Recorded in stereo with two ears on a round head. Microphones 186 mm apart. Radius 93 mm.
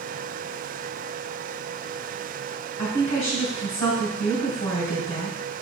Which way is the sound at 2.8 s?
35° left (ahead or behind).